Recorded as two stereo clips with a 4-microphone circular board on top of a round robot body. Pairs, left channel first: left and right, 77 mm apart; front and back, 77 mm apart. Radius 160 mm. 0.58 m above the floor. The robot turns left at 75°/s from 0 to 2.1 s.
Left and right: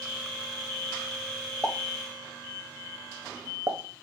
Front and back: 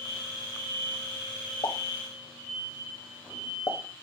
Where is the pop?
5° left, 0.8 m; by 3.8 s 30° right, 0.8 m.